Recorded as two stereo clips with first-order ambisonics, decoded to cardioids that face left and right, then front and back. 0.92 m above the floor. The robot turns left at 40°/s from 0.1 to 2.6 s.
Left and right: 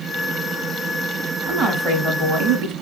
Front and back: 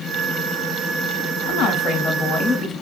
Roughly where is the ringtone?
No ringtone in this recording.